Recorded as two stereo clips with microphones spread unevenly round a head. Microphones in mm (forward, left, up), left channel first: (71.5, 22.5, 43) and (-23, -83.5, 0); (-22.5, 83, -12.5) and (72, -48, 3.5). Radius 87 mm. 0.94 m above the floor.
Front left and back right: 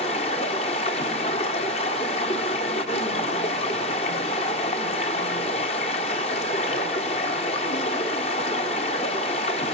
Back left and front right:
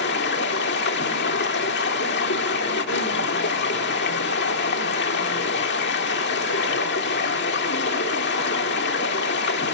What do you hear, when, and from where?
0.0 s running water: 105° left, 1.4 m